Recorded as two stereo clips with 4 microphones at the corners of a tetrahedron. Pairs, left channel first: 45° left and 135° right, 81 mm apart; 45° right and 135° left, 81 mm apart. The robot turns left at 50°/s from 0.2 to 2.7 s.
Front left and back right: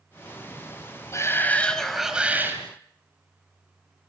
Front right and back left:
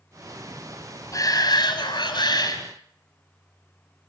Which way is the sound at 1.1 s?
5° right.